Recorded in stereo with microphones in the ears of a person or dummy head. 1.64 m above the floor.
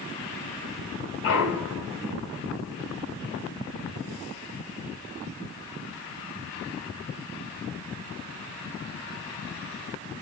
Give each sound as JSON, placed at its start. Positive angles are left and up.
{"t": 1.2, "sound": "a clunk", "side_deg": 65, "distance_m": 2.5}